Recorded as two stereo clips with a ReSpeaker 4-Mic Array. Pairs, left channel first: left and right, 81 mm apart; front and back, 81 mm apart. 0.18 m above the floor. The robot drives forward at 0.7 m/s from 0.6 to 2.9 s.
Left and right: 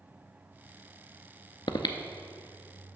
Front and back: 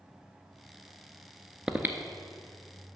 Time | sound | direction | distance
1.7 | breathing | 100° left | 0.5 m